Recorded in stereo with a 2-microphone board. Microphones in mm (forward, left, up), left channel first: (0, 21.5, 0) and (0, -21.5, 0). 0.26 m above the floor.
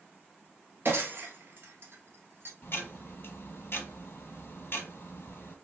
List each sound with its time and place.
0.8 s breaking glass: 55° right (ahead or behind), 1.2 m
2.6 s ticking: 50° left (ahead or behind), 1.1 m